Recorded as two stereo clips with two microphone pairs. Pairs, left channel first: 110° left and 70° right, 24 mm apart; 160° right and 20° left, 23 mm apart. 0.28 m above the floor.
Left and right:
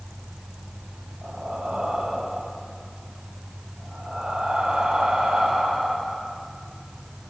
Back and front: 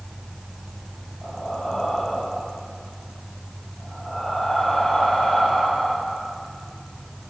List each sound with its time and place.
1.2 s breathing: 100° right, 7.5 m